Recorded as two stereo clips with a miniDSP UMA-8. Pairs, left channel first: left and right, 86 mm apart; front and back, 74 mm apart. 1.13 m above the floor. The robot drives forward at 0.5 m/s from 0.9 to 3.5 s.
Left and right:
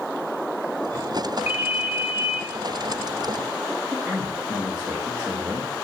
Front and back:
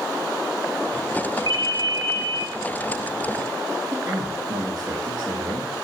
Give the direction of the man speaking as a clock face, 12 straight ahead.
6 o'clock.